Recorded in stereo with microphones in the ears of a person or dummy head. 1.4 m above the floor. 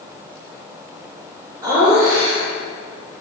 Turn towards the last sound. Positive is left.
turn(degrees=-15)  # may be behind; listen again after turning